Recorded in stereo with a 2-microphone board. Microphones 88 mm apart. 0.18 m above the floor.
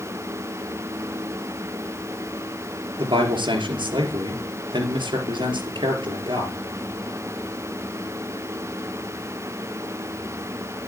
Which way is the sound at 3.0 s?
65° right (ahead or behind).